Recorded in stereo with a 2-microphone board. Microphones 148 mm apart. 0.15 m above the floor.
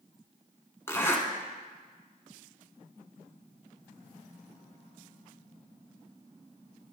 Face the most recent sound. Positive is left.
turn(degrees=20)  # may be behind; listen again after turning